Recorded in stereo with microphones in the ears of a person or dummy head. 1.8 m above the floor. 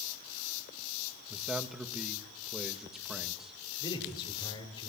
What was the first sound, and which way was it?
A man speaking, 5° right (ahead or behind).